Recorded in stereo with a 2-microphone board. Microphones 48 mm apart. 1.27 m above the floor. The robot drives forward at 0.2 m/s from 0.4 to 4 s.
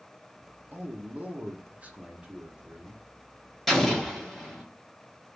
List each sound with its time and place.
0.7 s a man speaking: 40° right (ahead or behind), 0.6 m; by 3.6 s 20° right (ahead or behind), 1.0 m
3.7 s an explosion: 5° left (ahead or behind), 0.7 m